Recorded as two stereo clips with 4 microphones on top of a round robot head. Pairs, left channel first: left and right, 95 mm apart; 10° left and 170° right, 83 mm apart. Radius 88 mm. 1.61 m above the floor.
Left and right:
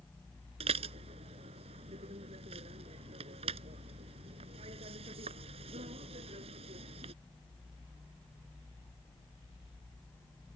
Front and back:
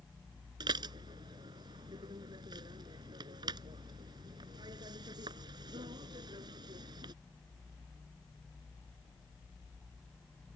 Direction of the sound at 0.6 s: 125° right.